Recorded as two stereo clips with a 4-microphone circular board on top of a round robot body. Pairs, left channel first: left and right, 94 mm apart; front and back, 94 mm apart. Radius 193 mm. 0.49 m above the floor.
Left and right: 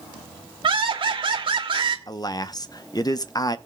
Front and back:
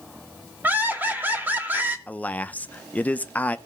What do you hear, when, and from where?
0.6 s laughter: 110° right, 2.5 m
2.1 s a man speaking: 65° left, 1.0 m